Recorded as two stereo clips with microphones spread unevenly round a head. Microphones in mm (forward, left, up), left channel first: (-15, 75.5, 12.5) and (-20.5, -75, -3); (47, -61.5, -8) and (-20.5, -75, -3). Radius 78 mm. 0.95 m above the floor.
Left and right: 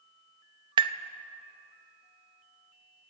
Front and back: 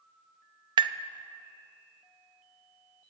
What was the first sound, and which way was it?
Tapping, 155° right.